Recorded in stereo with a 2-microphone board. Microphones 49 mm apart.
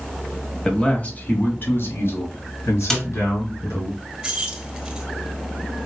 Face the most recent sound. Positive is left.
turn(degrees=-15)  # may be behind; listen again after turning